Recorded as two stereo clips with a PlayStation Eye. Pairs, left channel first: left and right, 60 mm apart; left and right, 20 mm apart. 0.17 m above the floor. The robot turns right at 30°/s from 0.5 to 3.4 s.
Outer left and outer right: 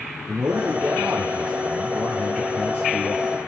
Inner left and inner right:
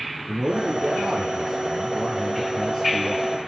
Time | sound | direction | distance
0.3 | a man speaking | 30° right | 3.5 m